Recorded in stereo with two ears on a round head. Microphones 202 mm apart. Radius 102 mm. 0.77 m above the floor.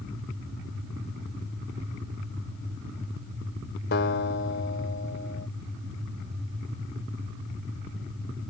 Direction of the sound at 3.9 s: 50° left (ahead or behind).